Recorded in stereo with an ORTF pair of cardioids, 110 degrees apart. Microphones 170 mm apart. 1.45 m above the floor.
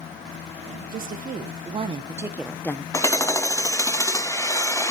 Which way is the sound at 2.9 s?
15° left.